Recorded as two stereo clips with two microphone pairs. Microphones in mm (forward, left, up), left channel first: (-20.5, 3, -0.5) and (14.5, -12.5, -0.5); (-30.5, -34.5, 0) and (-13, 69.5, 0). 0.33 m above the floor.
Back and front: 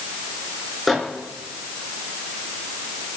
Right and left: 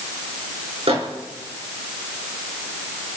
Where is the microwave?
65° left, 3.5 m.